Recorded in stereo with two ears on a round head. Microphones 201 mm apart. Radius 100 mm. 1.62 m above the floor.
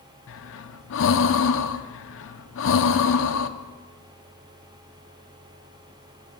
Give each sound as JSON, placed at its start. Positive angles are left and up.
{"t": 0.3, "sound": "breathing", "side_deg": 60, "distance_m": 0.9}